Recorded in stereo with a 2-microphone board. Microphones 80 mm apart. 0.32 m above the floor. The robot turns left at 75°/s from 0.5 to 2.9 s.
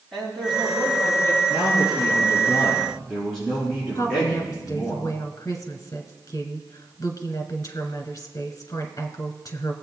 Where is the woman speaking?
45° left (ahead or behind), 1.9 m.